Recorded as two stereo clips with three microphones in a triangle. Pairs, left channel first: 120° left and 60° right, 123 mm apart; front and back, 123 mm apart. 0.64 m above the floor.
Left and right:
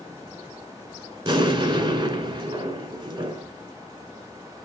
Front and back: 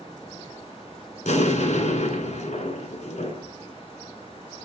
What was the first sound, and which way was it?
An explosion, 15° right.